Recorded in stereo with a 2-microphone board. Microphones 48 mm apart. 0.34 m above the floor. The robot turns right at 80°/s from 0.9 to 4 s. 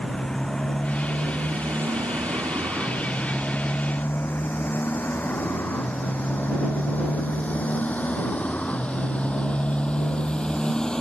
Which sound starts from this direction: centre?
A motorcycle, at 0.0 s.